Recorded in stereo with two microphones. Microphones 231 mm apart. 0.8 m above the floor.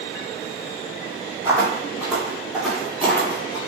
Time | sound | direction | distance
1.4 | footsteps | 15° right (ahead or behind) | 1.4 m